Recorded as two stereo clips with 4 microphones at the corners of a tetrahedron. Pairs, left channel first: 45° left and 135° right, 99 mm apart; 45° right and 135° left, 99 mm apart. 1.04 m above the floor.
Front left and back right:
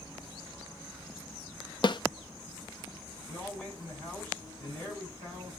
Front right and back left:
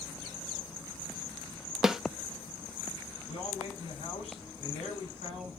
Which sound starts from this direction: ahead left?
A snare drum, at 1.8 s.